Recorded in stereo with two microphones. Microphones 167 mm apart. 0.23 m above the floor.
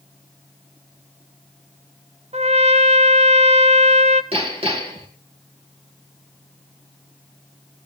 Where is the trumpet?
40° right (ahead or behind), 0.7 m.